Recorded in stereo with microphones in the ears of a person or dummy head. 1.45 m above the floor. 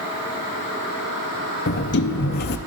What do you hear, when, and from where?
1.7 s a sliding door: 45° left (ahead or behind), 0.6 m